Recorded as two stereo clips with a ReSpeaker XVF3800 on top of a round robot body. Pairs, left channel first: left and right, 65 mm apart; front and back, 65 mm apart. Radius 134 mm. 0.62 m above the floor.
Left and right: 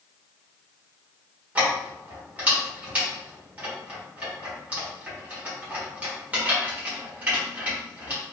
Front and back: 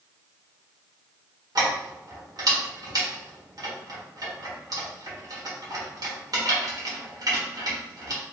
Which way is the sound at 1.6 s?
160° right.